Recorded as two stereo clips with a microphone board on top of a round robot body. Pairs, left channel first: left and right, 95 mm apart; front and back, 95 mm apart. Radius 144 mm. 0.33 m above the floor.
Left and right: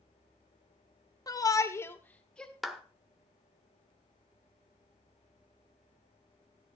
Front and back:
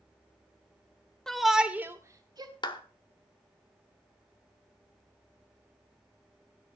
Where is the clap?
Straight ahead, 1.6 m.